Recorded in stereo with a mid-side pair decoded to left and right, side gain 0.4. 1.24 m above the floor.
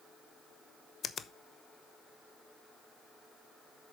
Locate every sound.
1.0 s a finger snap: 55° left, 0.9 m